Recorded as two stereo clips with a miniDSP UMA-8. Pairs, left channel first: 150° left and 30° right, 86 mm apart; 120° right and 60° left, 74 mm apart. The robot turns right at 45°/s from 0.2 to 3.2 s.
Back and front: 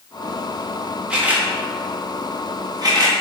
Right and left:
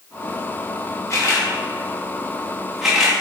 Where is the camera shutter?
105° right, 0.9 m; by 3.1 s 15° right, 0.9 m.